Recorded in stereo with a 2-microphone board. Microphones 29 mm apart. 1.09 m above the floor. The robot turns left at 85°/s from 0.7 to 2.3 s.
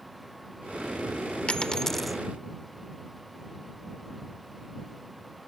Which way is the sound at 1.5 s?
50° left.